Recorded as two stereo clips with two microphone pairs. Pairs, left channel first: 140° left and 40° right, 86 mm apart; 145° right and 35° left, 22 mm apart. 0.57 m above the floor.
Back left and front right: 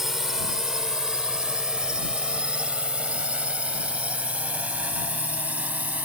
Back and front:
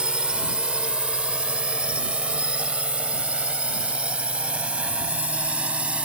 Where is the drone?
45° left; by 6.0 s 30° left.